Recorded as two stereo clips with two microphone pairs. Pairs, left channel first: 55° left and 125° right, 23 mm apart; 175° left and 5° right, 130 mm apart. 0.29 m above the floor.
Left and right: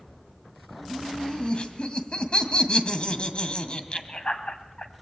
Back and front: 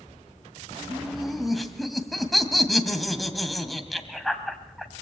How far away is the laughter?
About 2 m.